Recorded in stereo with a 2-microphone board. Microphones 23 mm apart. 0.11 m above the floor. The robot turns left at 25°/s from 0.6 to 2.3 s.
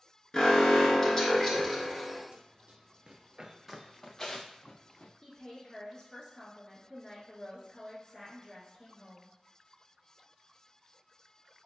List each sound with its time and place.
0.3 s an alarm: 25° left (ahead or behind), 0.9 m; by 2.2 s 10° left (ahead or behind), 0.9 m
2.3 s running footsteps: 55° right (ahead or behind), 1.0 m; by 5.1 s 50° left (ahead or behind), 0.8 m
5.2 s a woman speaking: 25° left (ahead or behind), 1.3 m